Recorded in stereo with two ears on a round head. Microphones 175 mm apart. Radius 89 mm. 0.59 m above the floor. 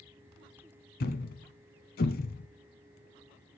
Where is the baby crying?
I don't hear a baby crying.